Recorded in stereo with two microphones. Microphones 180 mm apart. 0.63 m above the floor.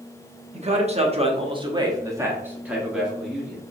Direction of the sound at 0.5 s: 40° right (ahead or behind).